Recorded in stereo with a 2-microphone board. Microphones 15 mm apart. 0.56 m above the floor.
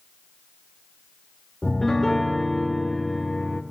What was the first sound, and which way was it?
A piano, 20° left (ahead or behind).